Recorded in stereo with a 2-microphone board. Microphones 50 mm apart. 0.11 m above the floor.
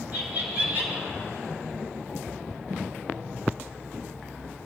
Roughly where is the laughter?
Right.